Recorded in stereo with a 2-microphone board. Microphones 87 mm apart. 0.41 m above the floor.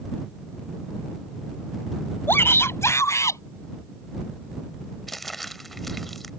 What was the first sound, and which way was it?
A shout, 25° left (ahead or behind).